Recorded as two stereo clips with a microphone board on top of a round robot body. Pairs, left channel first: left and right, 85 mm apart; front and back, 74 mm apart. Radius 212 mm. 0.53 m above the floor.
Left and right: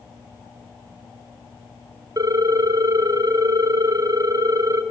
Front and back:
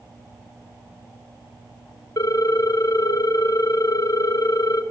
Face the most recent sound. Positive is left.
turn(degrees=-40)